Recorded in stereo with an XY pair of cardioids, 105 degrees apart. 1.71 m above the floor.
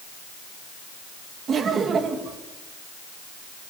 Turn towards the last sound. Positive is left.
turn(degrees=-50)